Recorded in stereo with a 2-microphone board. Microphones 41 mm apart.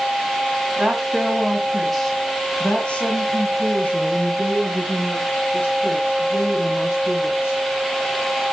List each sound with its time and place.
0.8 s a woman speaking: 25° right (ahead or behind), 1.5 m; by 7.6 s 70° left (ahead or behind), 4 m